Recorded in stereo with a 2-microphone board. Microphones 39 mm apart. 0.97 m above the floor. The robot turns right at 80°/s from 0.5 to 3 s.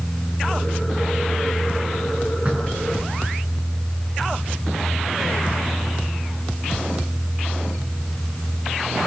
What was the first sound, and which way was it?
Knocking, 35° right.